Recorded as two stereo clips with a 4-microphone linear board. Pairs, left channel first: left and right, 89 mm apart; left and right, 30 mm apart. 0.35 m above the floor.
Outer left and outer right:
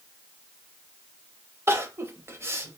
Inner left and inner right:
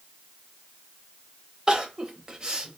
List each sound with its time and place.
1.7 s crying: 30° right (ahead or behind), 0.7 m